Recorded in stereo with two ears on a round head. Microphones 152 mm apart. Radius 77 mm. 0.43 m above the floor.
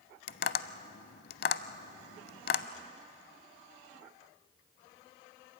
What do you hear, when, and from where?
0.3 s tapping: 55° left (ahead or behind), 0.7 m